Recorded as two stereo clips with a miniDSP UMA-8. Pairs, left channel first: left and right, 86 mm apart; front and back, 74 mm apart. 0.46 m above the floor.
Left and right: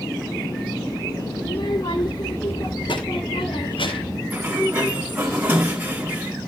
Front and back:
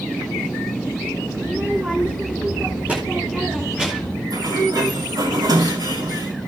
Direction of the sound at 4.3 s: 160° right.